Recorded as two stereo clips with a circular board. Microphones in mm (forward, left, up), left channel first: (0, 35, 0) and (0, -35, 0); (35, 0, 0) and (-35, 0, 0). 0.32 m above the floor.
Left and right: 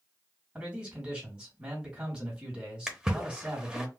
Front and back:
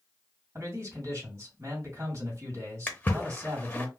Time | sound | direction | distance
0.6 | a man speaking | 160° right | 2 m
2.9 | a splash | 25° right | 0.7 m